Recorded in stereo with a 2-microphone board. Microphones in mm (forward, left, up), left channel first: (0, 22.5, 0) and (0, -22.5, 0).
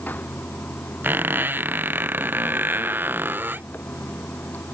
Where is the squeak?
45° right (ahead or behind).